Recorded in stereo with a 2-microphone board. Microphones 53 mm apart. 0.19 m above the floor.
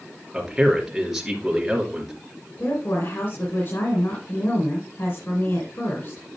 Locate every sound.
0.3 s a man speaking: 5° right (ahead or behind), 3 m
2.6 s a woman speaking: 50° left (ahead or behind), 2.5 m